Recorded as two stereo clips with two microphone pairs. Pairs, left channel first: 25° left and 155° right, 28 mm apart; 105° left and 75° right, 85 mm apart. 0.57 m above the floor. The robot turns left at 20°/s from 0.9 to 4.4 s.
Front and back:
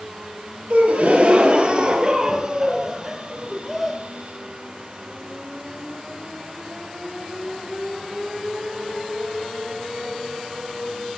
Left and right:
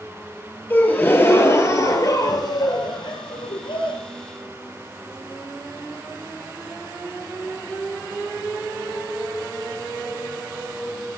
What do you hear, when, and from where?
0.7 s a gasp: 170° left, 1.8 m; by 4.0 s 110° left, 1.8 m